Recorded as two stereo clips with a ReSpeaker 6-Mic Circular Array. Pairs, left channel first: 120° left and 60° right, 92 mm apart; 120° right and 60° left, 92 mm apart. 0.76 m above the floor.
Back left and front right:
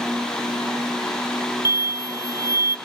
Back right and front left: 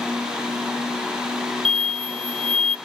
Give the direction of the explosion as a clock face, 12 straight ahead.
10 o'clock.